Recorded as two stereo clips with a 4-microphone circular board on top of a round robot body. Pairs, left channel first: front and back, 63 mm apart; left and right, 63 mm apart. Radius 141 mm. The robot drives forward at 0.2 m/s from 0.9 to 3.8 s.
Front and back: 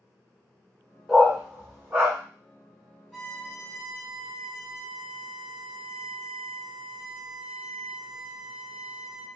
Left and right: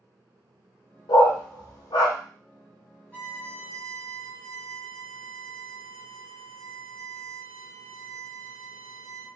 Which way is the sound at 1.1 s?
95° left.